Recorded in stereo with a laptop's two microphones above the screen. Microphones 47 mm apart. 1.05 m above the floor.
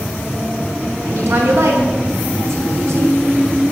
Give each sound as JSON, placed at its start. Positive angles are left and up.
{"t": 1.1, "sound": "a woman speaking", "side_deg": -80, "distance_m": 4.0}